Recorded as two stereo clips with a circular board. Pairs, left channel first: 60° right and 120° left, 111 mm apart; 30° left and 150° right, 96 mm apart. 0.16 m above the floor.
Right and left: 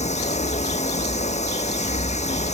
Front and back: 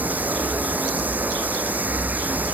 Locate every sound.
0.0 s running water: 75° right